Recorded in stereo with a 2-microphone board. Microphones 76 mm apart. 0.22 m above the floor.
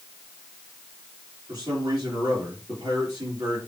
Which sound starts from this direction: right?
A man speaking, at 1.5 s.